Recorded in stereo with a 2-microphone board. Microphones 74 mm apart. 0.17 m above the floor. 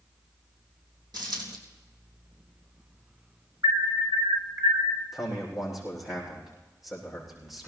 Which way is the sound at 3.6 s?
50° right (ahead or behind).